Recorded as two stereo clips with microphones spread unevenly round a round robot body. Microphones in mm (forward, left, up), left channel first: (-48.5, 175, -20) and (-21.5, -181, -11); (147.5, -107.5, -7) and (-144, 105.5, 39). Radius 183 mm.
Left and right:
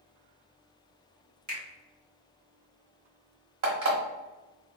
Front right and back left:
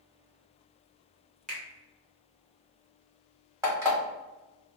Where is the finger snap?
105° right, 1.1 m.